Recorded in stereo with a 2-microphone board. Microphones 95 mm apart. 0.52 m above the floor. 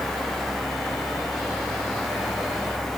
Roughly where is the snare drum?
No snare drum in this recording.